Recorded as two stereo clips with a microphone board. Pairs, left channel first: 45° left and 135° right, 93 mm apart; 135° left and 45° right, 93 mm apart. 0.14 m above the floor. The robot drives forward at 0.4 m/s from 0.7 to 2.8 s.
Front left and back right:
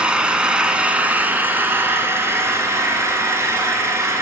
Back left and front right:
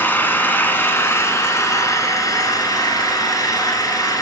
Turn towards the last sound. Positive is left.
turn(degrees=175)